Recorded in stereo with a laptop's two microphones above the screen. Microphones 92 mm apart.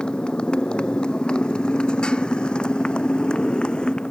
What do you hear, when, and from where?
0.0 s a motorcycle: 10° left (ahead or behind)